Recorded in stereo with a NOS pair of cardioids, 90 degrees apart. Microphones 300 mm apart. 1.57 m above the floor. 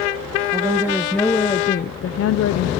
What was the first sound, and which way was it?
A woman speaking, 15° right.